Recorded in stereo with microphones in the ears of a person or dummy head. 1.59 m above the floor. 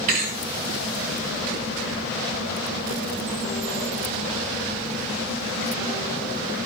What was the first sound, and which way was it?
A thud, 45° right (ahead or behind).